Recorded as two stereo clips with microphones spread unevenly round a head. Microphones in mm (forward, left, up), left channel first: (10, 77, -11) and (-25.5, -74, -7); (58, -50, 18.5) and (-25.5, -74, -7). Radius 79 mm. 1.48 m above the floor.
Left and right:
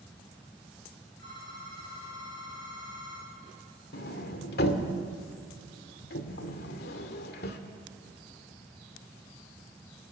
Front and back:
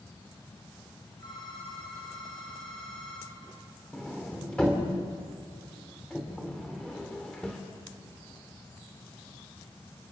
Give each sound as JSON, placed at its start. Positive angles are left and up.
{"t": 1.2, "sound": "a phone ringing", "azimuth_deg": 75, "distance_m": 8.5}
{"t": 3.9, "sound": "a sliding door", "azimuth_deg": 90, "distance_m": 2.0}